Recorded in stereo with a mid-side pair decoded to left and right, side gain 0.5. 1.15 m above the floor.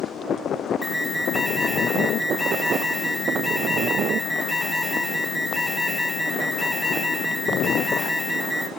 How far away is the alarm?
About 4 m.